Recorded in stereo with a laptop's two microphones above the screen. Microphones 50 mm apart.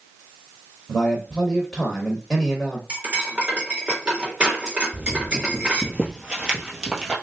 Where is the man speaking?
10° left (ahead or behind), 0.6 m.